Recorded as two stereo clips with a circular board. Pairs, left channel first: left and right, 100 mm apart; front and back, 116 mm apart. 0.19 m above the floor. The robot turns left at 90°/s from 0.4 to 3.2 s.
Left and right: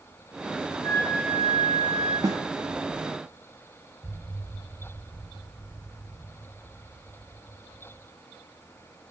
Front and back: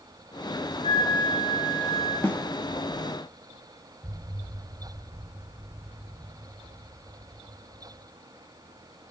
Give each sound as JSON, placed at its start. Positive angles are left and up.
{"t": 0.8, "sound": "a flute", "azimuth_deg": 140, "distance_m": 8.0}
{"t": 2.2, "sound": "a snare drum", "azimuth_deg": -65, "distance_m": 1.2}
{"t": 4.0, "sound": "an explosion", "azimuth_deg": -175, "distance_m": 1.2}